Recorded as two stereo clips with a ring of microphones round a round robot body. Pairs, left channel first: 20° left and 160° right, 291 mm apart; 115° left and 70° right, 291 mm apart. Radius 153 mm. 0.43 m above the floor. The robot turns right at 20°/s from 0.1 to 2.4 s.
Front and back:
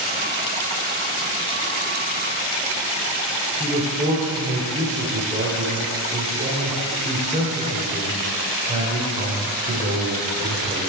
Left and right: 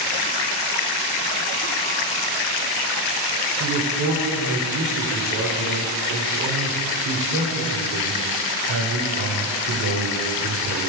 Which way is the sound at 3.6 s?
95° right.